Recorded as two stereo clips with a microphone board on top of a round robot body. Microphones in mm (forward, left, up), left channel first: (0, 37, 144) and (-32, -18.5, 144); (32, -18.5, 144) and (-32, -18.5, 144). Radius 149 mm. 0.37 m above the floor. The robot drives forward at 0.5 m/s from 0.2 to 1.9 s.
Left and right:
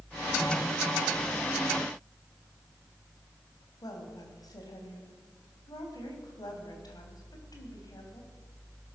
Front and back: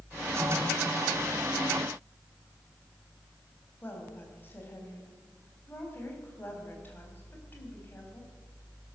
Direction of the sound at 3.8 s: 60° left.